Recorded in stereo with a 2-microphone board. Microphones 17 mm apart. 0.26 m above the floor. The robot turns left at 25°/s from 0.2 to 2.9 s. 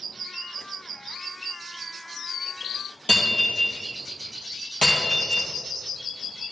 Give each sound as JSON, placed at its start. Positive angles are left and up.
{"t": 3.1, "sound": "breaking glass", "side_deg": 85, "distance_m": 2.0}